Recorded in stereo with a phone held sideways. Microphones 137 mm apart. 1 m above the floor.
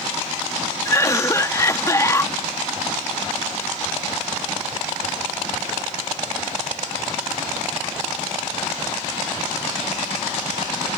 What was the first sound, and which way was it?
A cough, 20° left (ahead or behind).